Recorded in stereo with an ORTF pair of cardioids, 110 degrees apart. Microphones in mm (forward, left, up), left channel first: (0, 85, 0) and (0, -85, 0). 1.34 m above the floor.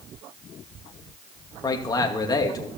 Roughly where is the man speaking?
Ahead.